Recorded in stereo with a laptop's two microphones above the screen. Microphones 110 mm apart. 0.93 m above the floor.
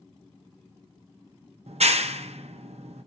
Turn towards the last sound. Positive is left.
turn(degrees=-80)